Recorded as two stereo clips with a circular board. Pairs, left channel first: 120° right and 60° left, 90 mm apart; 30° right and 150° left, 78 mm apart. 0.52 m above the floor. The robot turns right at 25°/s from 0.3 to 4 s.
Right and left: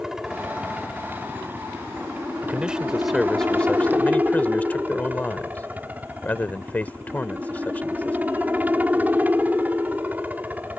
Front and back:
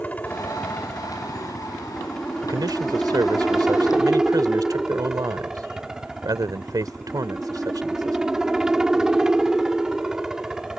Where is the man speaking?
130° left; by 8.2 s 170° left.